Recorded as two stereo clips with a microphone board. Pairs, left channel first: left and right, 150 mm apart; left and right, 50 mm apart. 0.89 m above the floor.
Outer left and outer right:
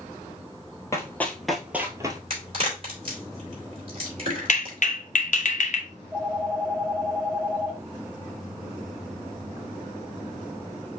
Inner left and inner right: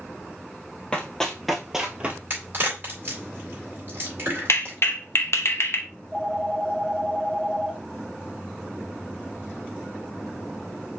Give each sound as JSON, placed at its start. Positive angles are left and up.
{"t": 0.9, "sound": "running footsteps", "side_deg": 20, "distance_m": 1.1}
{"t": 2.3, "sound": "a crack", "side_deg": -40, "distance_m": 3.0}
{"t": 4.5, "sound": "a clap", "side_deg": 60, "distance_m": 0.8}
{"t": 5.9, "sound": "a phone ringing", "side_deg": -10, "distance_m": 3.0}